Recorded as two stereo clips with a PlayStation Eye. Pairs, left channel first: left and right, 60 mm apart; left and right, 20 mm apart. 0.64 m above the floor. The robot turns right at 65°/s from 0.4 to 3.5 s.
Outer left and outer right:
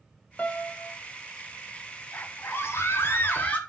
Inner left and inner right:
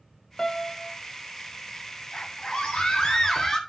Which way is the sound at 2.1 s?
50° left.